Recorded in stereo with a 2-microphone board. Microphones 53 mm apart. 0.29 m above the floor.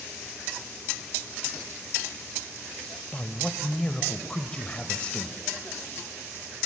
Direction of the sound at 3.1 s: 20° left (ahead or behind).